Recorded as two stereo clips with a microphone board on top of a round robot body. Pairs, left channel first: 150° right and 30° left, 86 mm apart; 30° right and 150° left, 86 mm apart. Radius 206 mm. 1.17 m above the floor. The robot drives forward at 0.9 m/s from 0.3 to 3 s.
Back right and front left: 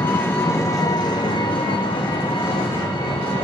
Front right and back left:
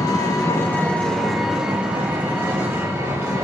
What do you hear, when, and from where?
0.0 s an engine running: 80° right, 1.3 m; by 3.4 s 150° right, 2.5 m